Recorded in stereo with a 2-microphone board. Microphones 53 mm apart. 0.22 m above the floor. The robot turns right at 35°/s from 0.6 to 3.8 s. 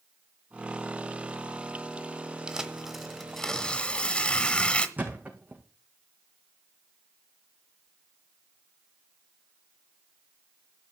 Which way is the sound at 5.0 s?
35° right (ahead or behind).